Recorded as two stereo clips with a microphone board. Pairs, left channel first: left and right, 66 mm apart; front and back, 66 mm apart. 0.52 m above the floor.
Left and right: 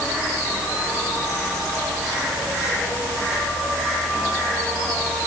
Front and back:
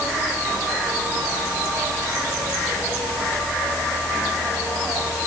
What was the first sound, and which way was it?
Only background noise.